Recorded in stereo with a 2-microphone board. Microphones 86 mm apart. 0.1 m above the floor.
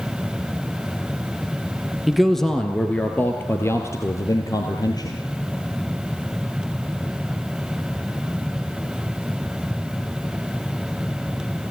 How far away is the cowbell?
No cowbell in this recording.